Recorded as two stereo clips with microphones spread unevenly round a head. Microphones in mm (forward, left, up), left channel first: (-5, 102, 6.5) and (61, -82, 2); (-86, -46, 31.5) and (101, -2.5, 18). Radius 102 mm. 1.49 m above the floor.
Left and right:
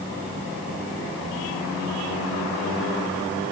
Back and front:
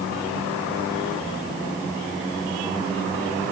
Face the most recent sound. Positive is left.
No sound to turn to.